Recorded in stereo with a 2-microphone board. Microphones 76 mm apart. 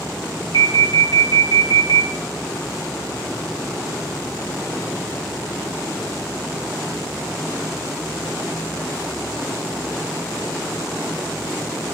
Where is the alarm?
70° left (ahead or behind), 2.5 m.